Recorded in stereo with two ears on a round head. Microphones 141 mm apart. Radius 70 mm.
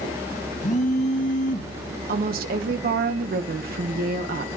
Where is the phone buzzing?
50° left (ahead or behind), 1.3 m.